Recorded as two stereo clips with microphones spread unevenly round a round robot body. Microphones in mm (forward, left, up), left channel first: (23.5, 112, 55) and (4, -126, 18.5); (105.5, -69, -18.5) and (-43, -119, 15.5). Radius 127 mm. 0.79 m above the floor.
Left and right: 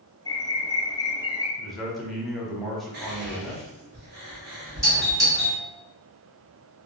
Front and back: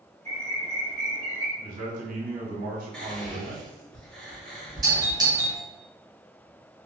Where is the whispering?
60° right, 1.3 m.